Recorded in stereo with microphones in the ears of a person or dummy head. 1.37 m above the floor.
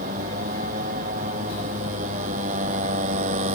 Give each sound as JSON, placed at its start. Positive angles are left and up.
{"t": 0.0, "sound": "a motorcycle", "side_deg": -50}